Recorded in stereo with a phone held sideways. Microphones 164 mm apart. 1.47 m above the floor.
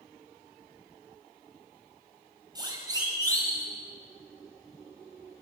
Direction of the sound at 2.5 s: 25° right (ahead or behind).